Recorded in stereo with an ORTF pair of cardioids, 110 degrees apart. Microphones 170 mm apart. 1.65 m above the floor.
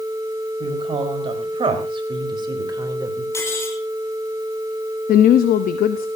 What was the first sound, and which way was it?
A woman speaking, 35° right.